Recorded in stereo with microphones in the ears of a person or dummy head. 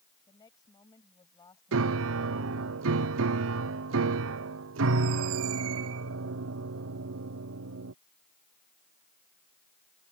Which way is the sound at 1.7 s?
75° right (ahead or behind).